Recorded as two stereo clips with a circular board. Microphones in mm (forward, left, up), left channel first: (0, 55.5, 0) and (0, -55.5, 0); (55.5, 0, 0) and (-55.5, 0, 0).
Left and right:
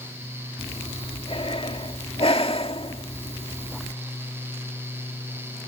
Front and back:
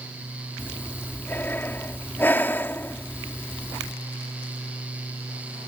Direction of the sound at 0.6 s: 70° left.